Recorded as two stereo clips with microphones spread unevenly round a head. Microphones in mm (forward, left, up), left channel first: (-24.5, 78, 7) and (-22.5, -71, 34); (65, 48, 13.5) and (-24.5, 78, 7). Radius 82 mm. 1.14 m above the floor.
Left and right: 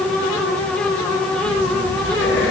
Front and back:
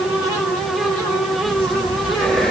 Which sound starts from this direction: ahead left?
Breathing, at 1.4 s.